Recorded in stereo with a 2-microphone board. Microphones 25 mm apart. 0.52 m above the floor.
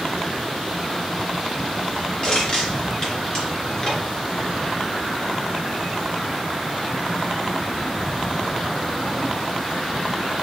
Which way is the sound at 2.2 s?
40° left (ahead or behind).